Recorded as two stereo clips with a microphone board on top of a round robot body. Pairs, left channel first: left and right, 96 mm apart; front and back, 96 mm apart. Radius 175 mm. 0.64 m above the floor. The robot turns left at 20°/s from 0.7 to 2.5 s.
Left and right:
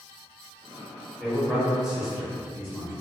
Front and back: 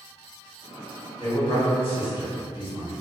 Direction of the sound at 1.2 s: 5° left.